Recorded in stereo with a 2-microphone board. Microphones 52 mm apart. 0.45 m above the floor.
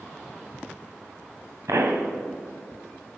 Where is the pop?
75° right (ahead or behind), 1.6 m.